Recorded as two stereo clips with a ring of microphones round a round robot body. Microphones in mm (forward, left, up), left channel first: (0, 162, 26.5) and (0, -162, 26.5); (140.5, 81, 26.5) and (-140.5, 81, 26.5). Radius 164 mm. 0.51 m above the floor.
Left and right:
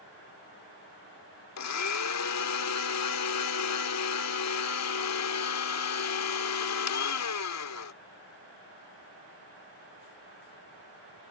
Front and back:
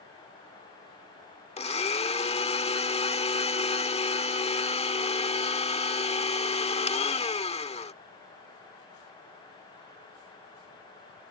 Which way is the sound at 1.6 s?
65° left.